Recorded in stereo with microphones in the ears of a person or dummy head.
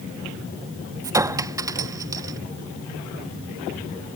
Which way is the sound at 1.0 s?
15° right (ahead or behind).